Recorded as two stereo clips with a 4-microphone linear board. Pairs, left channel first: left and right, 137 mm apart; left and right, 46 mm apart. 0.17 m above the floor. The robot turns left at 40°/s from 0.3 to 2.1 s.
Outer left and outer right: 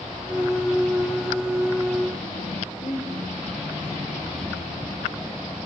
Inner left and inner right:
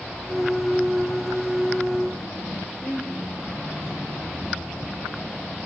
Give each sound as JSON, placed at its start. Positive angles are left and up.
{"t": 2.8, "sound": "a woman speaking", "side_deg": 80, "distance_m": 9.0}